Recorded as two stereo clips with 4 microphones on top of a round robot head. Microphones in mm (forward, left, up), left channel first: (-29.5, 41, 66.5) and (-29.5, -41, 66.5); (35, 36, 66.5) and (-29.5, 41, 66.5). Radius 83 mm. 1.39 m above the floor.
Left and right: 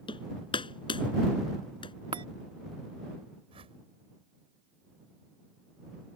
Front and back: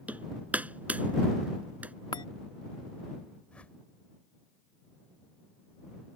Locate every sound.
0.1 s hammering: 110° left
2.1 s a chime: 45° right
3.5 s a whoosh: 80° right